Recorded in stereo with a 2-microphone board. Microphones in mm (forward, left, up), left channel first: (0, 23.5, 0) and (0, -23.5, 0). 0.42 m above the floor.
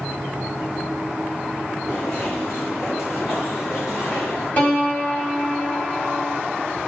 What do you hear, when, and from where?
1.9 s footsteps: 55° left (ahead or behind), 6 m; by 4.5 s 75° left (ahead or behind), 6.5 m
4.6 s a piano: 40° left (ahead or behind), 3 m